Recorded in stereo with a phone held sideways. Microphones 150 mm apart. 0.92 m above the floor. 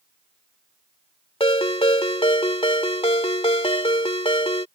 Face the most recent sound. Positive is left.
turn(degrees=40)  # may be behind; listen again after turning